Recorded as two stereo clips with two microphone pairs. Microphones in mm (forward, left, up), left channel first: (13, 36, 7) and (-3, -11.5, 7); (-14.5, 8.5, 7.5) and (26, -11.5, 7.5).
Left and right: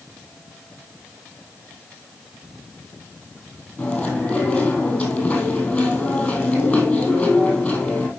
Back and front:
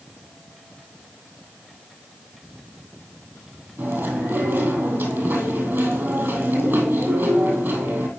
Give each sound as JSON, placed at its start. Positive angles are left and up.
{"t": 3.8, "sound": "chewing", "azimuth_deg": 0, "distance_m": 2.5}